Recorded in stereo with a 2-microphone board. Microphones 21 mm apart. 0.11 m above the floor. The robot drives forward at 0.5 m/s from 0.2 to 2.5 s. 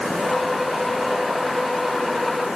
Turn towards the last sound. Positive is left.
No sound to turn to.